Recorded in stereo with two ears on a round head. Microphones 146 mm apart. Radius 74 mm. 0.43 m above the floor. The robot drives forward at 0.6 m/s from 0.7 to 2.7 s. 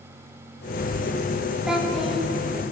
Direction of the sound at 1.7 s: 5° right (ahead or behind).